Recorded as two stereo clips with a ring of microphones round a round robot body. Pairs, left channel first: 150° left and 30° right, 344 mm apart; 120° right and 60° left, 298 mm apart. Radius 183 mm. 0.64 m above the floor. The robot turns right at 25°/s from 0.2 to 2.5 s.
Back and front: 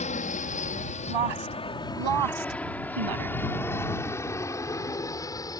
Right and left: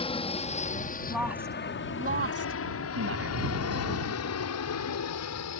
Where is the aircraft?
165° right; by 5.6 s 130° right.